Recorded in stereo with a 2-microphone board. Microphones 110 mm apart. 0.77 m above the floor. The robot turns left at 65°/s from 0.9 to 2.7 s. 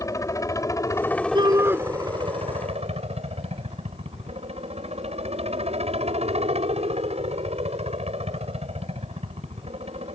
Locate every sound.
0.0 s a helicopter: 30° left; by 10.2 s 85° right
1.4 s a shout: 45° right (ahead or behind); by 1.8 s 15° right (ahead or behind)